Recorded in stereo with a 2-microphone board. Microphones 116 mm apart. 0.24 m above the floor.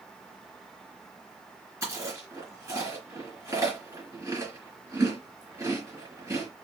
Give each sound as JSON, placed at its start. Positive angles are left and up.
{"t": 1.8, "sound": "chewing", "side_deg": -25, "distance_m": 2.5}